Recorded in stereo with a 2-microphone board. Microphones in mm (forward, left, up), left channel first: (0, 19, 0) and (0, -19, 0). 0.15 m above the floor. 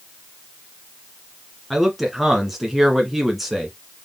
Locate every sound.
1.7 s a man speaking: 5° right (ahead or behind), 1.8 m